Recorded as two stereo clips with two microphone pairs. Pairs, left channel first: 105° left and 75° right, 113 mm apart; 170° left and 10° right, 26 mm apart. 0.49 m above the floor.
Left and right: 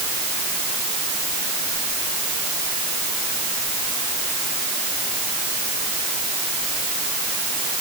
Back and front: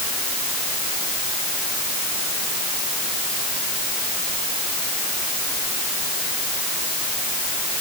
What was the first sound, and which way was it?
Only background noise.